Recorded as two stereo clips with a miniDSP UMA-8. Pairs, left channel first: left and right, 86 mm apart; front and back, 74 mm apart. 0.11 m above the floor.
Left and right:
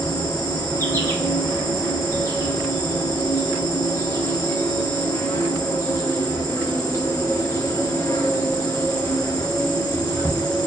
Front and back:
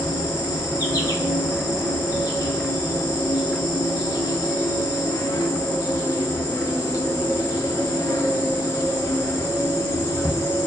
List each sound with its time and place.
0.0 s an insect: 30° left, 0.9 m